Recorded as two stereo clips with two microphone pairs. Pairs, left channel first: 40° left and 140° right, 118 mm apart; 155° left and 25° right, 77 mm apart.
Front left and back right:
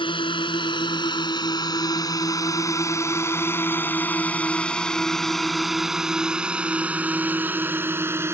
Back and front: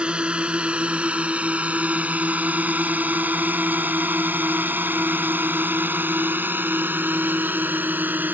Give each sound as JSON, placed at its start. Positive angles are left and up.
{"t": 0.0, "sound": "a drone", "azimuth_deg": 45}